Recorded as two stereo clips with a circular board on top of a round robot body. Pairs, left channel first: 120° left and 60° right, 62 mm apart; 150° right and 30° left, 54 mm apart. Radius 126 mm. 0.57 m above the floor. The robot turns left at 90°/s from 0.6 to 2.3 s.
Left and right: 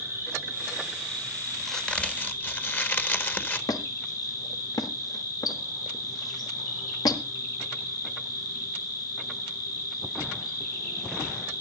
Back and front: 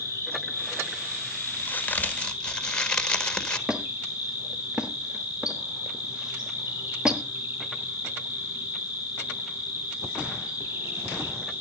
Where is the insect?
110° right, 9 m; by 11.6 s 100° left, 9 m.